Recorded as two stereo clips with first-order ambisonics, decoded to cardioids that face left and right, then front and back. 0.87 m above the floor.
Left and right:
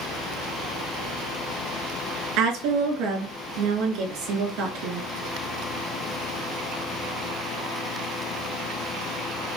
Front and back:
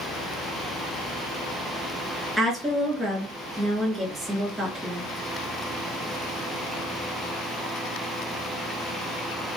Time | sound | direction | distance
2.4 | a woman speaking | 105° right | 1.8 m